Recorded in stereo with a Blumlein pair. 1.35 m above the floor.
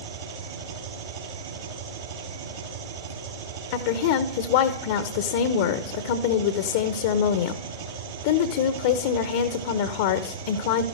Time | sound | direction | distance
0.0 | an engine running | 60° right | 6 m
3.7 | a woman speaking | 50° left | 0.9 m